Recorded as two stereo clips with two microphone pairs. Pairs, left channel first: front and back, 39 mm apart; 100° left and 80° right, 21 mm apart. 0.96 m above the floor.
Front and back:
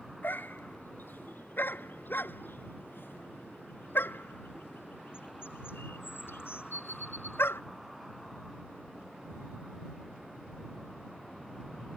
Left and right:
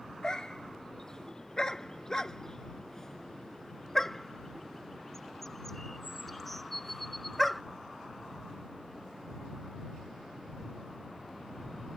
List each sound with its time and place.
0.2 s a dog barking: 40° left; by 7.6 s 10° left